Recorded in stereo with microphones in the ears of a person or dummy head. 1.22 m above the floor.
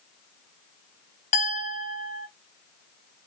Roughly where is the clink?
Left.